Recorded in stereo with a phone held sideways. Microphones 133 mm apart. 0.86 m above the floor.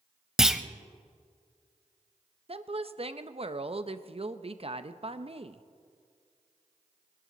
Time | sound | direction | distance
0.4 | a clunk | 5° right (ahead or behind) | 0.7 m
2.5 | a woman speaking | 45° right (ahead or behind) | 0.6 m